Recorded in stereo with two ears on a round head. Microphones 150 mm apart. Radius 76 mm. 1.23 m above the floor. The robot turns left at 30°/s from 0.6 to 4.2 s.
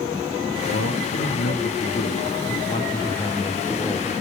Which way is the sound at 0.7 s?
90° left.